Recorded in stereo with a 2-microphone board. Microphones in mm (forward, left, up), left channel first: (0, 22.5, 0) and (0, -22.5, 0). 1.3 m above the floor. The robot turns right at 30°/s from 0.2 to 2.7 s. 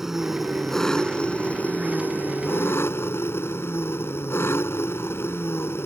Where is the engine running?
10° right; by 5.9 s 65° left.